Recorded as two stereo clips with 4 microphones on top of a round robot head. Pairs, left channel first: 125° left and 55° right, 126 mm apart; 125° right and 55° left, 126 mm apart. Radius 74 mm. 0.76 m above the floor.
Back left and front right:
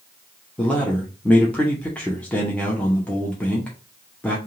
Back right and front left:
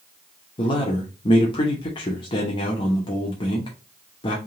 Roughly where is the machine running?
No machine running in this recording.